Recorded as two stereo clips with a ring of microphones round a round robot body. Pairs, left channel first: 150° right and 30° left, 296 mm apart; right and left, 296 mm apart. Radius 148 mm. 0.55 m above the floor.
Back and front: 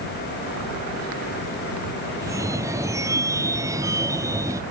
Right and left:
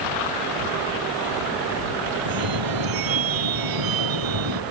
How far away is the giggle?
I don't hear a giggle.